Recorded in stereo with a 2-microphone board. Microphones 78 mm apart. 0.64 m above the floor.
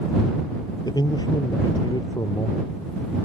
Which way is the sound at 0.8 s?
60° left (ahead or behind).